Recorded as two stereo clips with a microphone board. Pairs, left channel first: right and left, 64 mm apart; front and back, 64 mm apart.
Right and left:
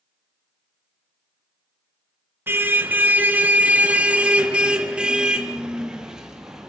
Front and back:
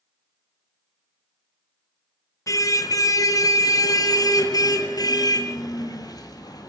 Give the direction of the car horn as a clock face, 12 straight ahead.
11 o'clock.